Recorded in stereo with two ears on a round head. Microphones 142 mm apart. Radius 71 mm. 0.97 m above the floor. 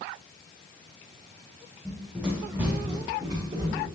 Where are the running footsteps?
5° left (ahead or behind), 2.5 m; by 3.9 s 35° right (ahead or behind), 3.5 m.